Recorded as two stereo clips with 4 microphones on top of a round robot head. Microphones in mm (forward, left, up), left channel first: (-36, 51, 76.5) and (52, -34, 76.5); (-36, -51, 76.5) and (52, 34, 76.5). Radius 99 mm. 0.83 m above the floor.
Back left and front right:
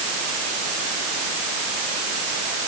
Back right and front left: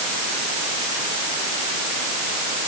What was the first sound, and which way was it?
Only background noise.